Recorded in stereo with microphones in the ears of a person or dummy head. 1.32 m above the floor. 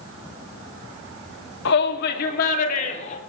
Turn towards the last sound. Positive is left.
turn(degrees=40)  # may be behind; listen again after turning